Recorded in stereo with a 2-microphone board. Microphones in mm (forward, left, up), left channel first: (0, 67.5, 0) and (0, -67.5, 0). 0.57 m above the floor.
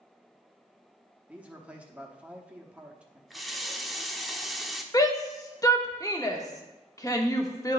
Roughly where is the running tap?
Centre.